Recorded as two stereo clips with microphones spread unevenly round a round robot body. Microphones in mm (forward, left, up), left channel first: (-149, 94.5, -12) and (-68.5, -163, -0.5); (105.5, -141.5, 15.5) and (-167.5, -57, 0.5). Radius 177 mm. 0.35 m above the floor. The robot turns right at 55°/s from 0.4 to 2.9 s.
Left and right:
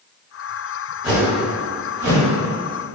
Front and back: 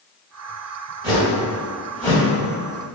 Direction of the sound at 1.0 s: 135° right.